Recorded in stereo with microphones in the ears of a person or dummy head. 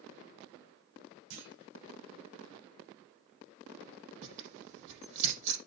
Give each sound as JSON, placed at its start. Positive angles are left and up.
{"t": 1.3, "sound": "a clunk", "side_deg": -70, "distance_m": 4.5}
{"t": 4.2, "sound": "tearing paper", "side_deg": -70, "distance_m": 6.0}